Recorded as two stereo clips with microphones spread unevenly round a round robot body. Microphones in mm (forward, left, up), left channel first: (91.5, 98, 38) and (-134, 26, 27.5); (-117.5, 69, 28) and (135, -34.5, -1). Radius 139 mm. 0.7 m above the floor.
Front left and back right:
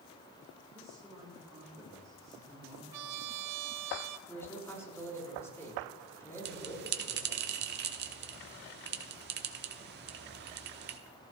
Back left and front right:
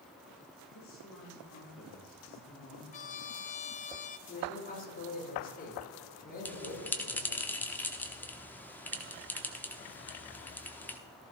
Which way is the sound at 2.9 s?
135° right.